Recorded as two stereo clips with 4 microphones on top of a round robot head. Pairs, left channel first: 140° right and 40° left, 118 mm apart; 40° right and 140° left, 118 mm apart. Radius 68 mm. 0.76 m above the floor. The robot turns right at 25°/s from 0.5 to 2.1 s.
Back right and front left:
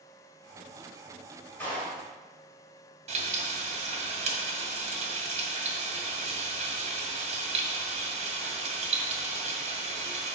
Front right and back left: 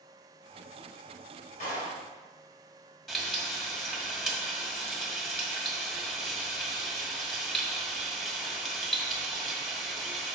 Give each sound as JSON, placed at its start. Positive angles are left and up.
{"t": 1.6, "sound": "a clap", "azimuth_deg": -65, "distance_m": 3.0}
{"t": 3.1, "sound": "frying", "azimuth_deg": 45, "distance_m": 1.9}